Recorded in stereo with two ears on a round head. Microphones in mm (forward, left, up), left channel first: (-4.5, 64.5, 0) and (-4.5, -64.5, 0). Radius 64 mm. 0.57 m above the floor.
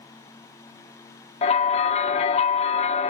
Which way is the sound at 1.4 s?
45° left (ahead or behind).